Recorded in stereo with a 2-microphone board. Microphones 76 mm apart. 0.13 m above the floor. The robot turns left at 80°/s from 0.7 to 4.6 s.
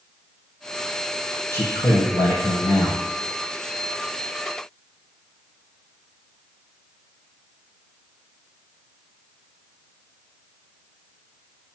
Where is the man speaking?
150° left, 3.5 m; by 3.0 s 30° left, 3.5 m.